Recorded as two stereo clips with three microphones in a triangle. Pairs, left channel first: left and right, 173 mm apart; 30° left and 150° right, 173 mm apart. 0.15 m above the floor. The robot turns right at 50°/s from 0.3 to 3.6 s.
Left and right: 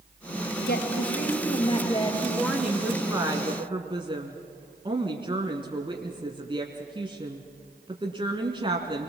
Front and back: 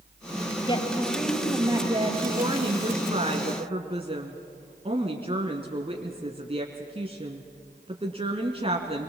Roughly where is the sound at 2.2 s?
Behind.